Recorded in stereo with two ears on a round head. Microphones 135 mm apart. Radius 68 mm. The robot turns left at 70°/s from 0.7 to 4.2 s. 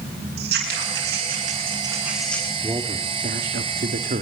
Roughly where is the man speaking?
Ahead.